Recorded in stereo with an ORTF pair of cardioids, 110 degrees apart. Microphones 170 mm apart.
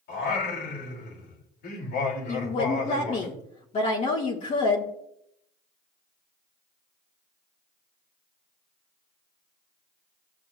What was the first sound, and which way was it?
Singing, 70° left.